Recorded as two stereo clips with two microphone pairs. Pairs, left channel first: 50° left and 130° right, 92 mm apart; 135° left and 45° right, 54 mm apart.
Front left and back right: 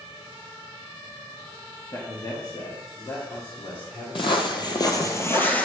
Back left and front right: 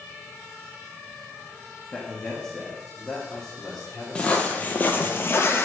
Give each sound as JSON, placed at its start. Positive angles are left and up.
{"t": 1.9, "sound": "a man speaking", "azimuth_deg": 70, "distance_m": 1.2}
{"t": 4.2, "sound": "footsteps", "azimuth_deg": 65, "distance_m": 1.2}